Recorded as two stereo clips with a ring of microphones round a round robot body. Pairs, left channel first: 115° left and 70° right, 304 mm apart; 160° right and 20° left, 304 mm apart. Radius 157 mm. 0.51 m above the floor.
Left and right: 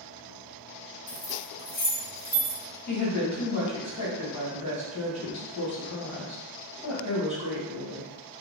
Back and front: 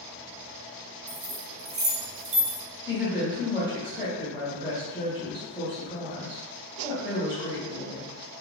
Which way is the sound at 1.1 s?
60° left.